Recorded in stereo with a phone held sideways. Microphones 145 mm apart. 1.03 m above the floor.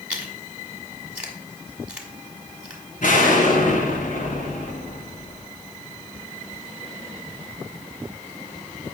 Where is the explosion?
70° left (ahead or behind), 2.5 m.